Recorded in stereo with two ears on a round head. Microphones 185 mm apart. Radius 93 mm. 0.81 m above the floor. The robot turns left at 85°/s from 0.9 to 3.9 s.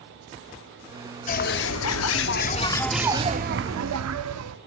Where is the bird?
140° left, 0.6 m; by 4.6 s 80° right, 0.6 m.